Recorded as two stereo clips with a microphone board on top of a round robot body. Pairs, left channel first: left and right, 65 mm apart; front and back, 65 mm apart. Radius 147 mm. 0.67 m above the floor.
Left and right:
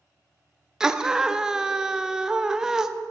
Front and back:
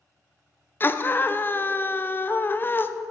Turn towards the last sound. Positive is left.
turn(degrees=-15)